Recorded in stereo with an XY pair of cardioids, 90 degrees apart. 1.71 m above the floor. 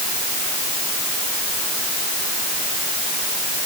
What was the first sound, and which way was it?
Only background noise.